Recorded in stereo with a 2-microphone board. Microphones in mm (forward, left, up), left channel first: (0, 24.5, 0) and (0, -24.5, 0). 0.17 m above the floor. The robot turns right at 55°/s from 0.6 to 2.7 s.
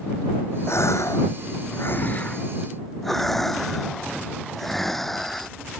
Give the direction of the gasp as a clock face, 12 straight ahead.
10 o'clock.